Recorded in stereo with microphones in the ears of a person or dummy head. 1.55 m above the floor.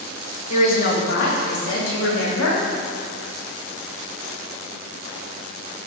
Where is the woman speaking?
45° left (ahead or behind), 1.6 m; by 2.6 s 80° left, 2.5 m.